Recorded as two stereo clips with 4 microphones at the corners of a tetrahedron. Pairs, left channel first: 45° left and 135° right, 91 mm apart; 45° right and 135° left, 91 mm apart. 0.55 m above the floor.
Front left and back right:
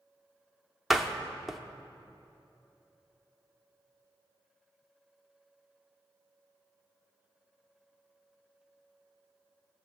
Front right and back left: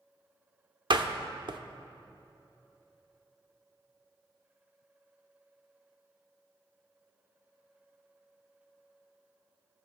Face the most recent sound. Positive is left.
turn(degrees=140)